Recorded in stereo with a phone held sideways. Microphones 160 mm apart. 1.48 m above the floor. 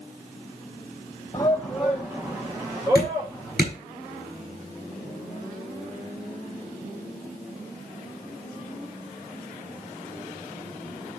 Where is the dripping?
80° right, 6 m.